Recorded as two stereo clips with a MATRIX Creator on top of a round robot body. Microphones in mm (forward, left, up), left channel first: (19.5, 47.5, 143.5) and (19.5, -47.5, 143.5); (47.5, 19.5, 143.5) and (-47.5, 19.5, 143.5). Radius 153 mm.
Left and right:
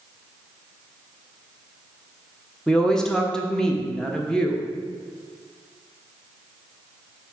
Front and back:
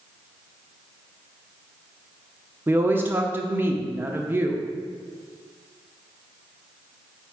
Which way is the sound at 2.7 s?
165° left.